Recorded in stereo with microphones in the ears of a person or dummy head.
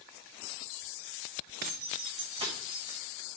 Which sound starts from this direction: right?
Keys jangling, at 1.6 s.